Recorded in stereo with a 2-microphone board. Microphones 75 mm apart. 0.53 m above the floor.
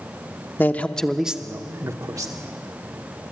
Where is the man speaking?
25° left (ahead or behind), 0.8 m; by 2.3 s 55° right (ahead or behind), 1.1 m.